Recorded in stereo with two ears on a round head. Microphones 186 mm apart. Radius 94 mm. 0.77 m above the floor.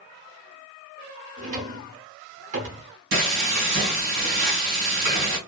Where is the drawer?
40° right (ahead or behind), 0.8 m.